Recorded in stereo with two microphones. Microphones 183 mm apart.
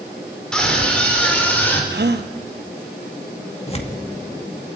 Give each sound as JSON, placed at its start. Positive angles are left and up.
{"t": 0.5, "sound": "a scream", "side_deg": 5, "distance_m": 5.5}
{"t": 1.9, "sound": "a gasp", "side_deg": -65, "distance_m": 1.0}
{"t": 3.7, "sound": "tearing paper", "side_deg": 35, "distance_m": 1.9}